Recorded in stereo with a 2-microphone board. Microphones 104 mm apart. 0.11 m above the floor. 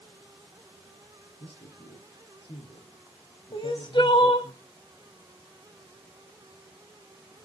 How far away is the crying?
About 1.3 m.